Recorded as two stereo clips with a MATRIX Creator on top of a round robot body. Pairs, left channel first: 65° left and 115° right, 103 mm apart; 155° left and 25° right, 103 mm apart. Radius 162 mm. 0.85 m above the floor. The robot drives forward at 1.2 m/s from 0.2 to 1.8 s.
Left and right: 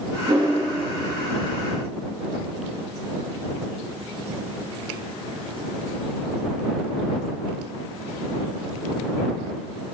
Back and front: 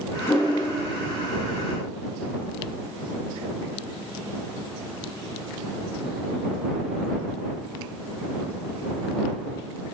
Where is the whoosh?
145° right, 2.5 m; by 0.6 s 150° right, 2.5 m.